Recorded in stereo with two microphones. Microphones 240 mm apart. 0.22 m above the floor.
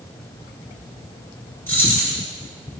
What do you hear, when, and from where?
1.7 s keys jangling: 10° left (ahead or behind), 2.0 m